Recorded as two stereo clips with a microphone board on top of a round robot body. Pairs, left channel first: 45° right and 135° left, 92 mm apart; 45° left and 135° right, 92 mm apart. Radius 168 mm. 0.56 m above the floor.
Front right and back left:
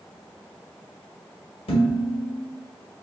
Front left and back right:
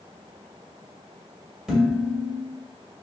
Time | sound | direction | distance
1.7 | dishes clattering | 50° right | 2 m